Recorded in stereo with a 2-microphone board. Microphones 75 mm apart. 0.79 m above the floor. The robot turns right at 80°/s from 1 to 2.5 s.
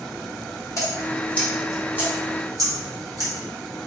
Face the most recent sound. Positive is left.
turn(degrees=-50)  # may be behind; listen again after turning